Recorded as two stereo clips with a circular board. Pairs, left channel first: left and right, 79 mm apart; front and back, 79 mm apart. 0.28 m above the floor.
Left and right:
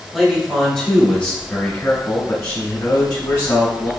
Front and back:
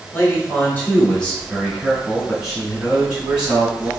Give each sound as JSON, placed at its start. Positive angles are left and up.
{"t": 0.1, "sound": "a man speaking", "azimuth_deg": -5, "distance_m": 1.6}